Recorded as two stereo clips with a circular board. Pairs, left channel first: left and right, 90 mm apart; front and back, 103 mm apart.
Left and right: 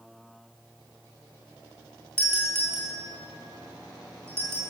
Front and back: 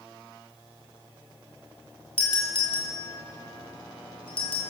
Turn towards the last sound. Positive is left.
turn(degrees=-25)